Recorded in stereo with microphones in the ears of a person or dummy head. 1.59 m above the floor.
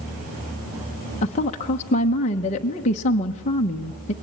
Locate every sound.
1.2 s a woman speaking: 35° left (ahead or behind), 1.1 m